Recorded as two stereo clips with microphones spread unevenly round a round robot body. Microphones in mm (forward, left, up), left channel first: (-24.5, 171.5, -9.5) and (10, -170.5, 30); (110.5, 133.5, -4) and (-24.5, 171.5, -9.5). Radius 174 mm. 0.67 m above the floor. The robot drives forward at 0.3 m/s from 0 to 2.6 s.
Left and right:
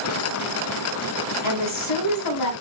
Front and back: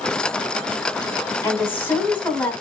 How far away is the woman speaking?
About 2.5 m.